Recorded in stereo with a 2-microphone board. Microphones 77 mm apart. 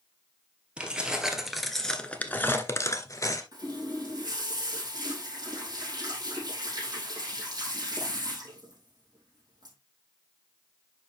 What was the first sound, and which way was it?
Keys jangling, 15° right (ahead or behind).